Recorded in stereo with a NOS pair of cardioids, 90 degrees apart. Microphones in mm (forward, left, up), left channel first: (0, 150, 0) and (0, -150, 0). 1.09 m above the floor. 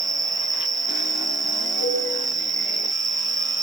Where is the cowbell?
65° right, 9.5 m.